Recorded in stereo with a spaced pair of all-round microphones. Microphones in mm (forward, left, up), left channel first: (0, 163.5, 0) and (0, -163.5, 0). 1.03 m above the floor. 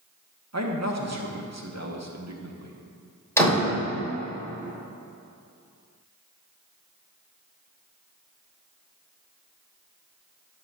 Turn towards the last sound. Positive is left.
turn(degrees=10)  # may be behind; listen again after turning